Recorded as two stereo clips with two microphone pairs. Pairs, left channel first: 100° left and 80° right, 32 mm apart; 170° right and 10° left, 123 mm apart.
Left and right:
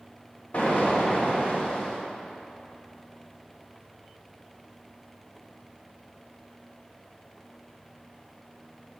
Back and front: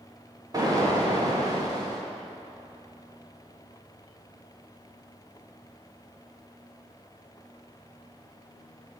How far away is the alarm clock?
I don't hear an alarm clock.